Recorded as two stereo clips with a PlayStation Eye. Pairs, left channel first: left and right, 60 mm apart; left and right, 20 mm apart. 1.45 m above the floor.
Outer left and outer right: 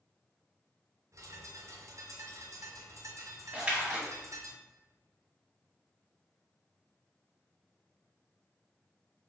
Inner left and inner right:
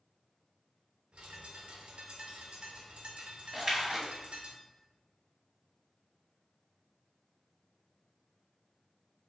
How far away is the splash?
About 1.1 m.